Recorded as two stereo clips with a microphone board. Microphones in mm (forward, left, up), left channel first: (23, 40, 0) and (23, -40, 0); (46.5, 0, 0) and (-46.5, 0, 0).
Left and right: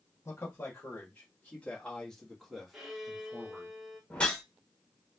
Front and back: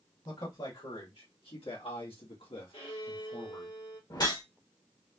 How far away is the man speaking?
About 2.5 m.